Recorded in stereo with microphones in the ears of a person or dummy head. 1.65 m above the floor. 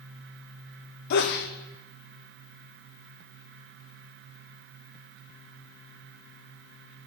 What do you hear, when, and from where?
1.1 s a sneeze: 60° left (ahead or behind), 0.7 m